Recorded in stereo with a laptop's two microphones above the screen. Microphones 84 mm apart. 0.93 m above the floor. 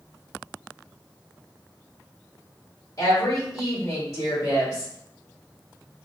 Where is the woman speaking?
40° left (ahead or behind), 1.9 m.